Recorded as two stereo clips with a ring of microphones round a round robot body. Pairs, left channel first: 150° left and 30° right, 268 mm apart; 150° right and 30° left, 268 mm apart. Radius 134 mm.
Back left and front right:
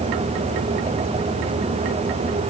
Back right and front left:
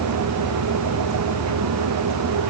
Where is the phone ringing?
I don't hear a phone ringing.